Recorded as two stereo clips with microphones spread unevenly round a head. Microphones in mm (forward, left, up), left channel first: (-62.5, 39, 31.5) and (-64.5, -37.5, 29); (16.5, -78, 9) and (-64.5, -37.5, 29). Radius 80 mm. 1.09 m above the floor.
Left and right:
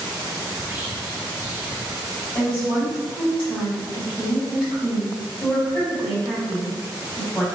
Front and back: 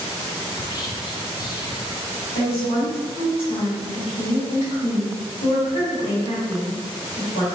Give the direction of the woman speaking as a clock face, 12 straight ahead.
12 o'clock.